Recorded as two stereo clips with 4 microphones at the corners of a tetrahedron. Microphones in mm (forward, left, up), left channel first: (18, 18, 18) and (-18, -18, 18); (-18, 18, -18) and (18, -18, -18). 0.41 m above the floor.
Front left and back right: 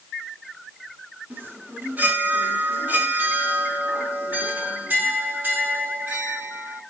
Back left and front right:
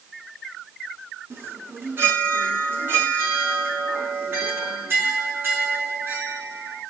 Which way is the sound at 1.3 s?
85° right.